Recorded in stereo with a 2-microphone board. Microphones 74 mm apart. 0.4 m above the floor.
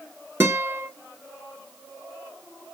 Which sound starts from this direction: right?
A guitar, at 0.4 s.